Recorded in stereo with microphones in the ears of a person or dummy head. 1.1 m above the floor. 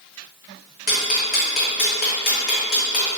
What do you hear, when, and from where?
0.9 s ticking: 40° left (ahead or behind), 0.7 m